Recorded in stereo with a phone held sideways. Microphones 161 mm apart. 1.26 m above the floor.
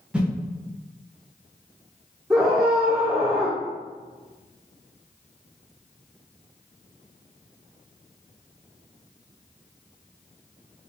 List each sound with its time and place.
0.1 s a whoosh: 5° right (ahead or behind), 0.9 m
2.3 s a scream: 15° right (ahead or behind), 0.8 m